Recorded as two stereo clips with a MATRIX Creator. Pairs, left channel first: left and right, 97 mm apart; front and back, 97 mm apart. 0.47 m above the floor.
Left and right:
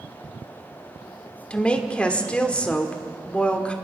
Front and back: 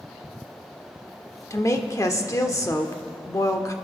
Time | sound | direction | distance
1.5 | a woman speaking | 20° left | 1.3 m